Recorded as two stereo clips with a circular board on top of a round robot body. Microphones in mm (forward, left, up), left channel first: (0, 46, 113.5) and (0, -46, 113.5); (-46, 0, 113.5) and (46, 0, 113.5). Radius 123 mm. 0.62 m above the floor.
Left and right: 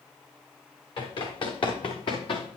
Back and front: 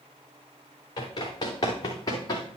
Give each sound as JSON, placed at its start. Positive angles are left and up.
{"t": 1.0, "sound": "running footsteps", "azimuth_deg": 130, "distance_m": 4.5}